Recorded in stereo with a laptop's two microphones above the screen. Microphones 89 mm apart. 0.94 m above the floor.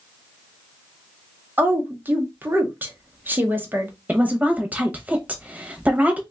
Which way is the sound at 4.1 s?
20° right (ahead or behind).